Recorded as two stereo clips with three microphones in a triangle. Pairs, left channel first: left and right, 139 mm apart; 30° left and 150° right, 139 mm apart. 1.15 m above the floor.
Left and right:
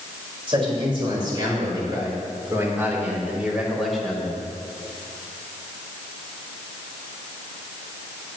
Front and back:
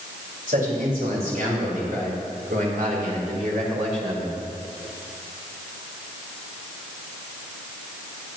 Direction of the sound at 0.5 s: 140° right.